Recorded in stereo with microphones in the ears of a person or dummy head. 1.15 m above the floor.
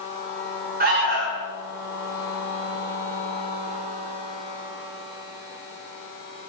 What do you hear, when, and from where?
0.8 s an alarm: 35° right (ahead or behind), 1.4 m